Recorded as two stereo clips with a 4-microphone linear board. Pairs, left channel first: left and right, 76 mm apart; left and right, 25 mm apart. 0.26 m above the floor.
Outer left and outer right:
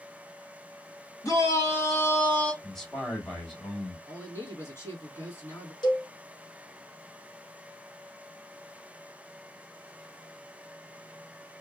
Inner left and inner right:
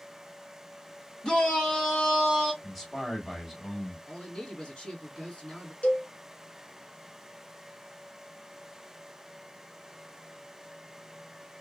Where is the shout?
45° left (ahead or behind), 2 m; by 2.5 s 20° left (ahead or behind), 1.7 m.